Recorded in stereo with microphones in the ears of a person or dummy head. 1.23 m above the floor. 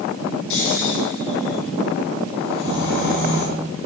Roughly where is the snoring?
Left.